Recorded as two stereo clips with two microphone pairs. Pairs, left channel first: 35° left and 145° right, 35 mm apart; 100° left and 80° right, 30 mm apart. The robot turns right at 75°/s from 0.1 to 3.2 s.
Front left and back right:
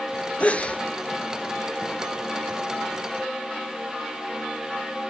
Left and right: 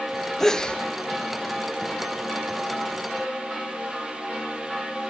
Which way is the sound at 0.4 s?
30° left.